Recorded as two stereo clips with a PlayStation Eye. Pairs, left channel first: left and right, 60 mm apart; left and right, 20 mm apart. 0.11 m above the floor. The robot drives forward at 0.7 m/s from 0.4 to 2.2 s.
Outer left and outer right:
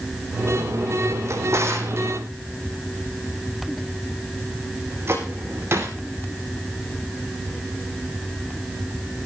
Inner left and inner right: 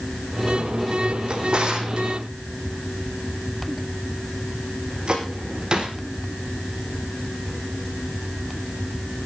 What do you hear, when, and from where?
1.3 s a drawer: 55° right (ahead or behind), 3 m; by 6.0 s 45° right (ahead or behind), 3.5 m